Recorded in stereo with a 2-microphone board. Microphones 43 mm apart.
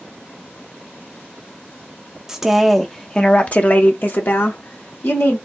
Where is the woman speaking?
10° right (ahead or behind), 0.8 m; by 5.4 s 65° left (ahead or behind), 1.4 m.